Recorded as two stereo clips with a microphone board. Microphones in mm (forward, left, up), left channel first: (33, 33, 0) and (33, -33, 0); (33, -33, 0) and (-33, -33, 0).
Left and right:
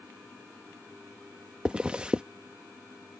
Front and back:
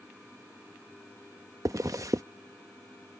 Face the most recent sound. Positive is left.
turn(degrees=-165)